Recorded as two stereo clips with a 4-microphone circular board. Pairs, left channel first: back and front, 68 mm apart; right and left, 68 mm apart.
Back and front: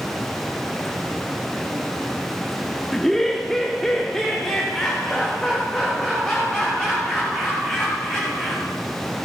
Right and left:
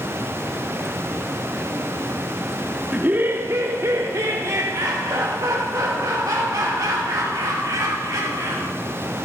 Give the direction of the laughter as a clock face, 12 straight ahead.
9 o'clock.